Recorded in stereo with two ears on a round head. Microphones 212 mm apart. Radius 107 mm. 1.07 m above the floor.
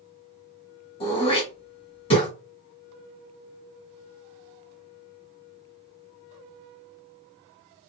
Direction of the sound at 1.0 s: 25° left (ahead or behind).